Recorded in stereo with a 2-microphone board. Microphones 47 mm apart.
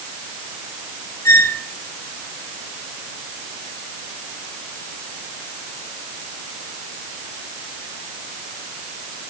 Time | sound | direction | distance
1.2 | a squeak | 75° left (ahead or behind) | 1.8 m